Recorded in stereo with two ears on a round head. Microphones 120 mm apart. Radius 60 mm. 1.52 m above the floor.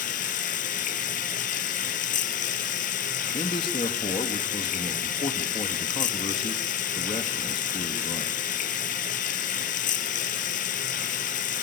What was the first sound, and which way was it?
Running water, 65° left (ahead or behind).